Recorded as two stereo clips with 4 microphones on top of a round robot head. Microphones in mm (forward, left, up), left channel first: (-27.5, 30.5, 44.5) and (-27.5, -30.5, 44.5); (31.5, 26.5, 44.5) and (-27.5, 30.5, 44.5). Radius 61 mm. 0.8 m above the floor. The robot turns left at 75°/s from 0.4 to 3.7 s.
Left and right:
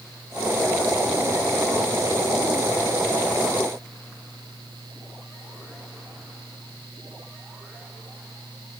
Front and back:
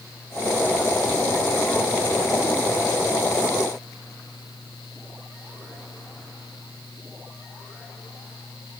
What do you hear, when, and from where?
Only background noise.